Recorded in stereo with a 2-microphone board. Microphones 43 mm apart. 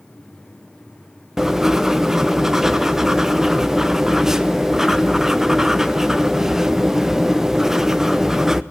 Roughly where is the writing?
Centre.